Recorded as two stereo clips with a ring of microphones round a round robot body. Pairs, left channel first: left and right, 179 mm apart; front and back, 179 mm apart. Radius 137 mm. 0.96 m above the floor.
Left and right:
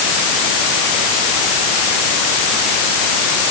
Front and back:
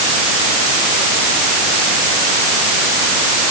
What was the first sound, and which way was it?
Only background noise.